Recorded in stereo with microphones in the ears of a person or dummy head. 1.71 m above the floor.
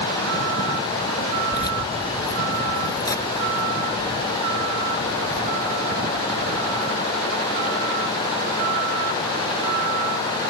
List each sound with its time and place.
1.5 s keys jangling: 20° left (ahead or behind); by 6.9 s 10° left (ahead or behind)